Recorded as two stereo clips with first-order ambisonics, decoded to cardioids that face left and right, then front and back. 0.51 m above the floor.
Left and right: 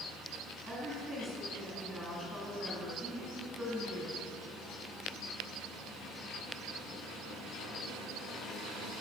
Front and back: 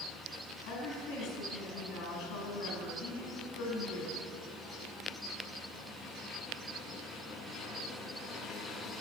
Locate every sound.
0.7 s a woman speaking: straight ahead, 4.5 m